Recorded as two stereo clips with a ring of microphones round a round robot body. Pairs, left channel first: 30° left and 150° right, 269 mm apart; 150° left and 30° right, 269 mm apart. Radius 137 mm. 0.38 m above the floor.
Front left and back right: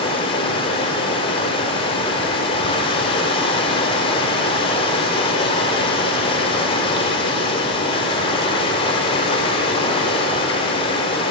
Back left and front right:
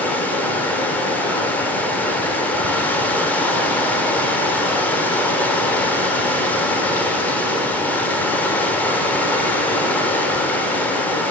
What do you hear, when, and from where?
0.0 s running water: 75° left, 0.9 m